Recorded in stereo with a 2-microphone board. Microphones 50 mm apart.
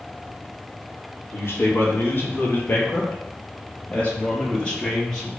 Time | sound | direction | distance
1.3 | a man speaking | 50° left (ahead or behind) | 4.5 m